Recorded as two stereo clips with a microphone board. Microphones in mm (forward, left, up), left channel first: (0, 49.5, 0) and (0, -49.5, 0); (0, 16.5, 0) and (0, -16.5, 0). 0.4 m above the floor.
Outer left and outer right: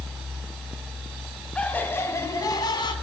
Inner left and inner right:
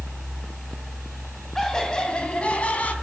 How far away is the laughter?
About 2.5 m.